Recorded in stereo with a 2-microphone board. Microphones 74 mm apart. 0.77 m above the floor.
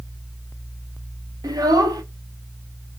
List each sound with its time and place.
1.4 s a child speaking: 65° right (ahead or behind), 1.0 m